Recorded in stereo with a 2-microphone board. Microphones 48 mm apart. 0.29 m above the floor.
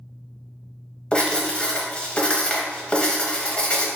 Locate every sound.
1.1 s writing: 25° left (ahead or behind), 0.8 m